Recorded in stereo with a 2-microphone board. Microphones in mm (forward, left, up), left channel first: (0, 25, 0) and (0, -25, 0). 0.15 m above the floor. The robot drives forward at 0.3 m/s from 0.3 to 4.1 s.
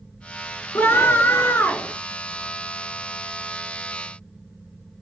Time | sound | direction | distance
0.8 | a scream | 50° left (ahead or behind) | 2.5 m